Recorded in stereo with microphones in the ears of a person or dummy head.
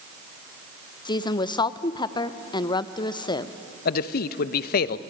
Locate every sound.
1.1 s a woman speaking: 25° left (ahead or behind), 0.6 m
3.9 s a man speaking: 55° left (ahead or behind), 0.6 m